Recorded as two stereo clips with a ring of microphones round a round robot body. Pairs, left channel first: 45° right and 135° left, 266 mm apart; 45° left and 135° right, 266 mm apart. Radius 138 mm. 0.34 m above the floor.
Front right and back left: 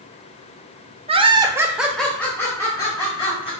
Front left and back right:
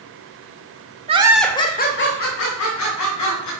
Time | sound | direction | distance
1.1 | laughter | straight behind | 0.9 m